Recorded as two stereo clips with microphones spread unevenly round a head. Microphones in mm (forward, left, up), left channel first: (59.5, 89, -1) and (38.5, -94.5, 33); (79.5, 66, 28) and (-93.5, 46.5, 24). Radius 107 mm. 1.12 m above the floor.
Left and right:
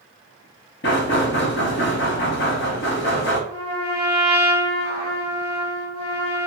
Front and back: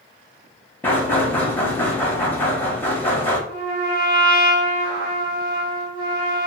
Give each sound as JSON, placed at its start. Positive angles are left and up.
{"t": 0.8, "sound": "knocking", "azimuth_deg": 85, "distance_m": 0.9}
{"t": 3.5, "sound": "a trumpet", "azimuth_deg": -170, "distance_m": 1.2}